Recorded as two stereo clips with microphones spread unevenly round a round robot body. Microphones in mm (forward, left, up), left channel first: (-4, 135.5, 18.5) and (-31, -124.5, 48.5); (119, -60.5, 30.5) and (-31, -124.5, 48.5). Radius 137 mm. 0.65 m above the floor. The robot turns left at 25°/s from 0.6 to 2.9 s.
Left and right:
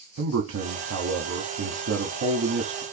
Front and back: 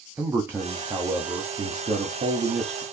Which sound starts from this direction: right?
A man speaking, at 0.2 s.